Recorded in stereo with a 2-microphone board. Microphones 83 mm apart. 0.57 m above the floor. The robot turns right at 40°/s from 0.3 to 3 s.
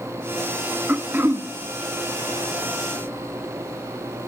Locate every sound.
0.9 s throat clearing: 20° right (ahead or behind), 0.7 m; by 1.5 s 30° right (ahead or behind), 0.7 m